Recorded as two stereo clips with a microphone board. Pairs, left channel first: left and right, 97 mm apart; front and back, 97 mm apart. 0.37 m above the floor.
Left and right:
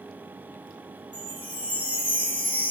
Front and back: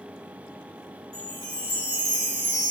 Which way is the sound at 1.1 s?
160° left.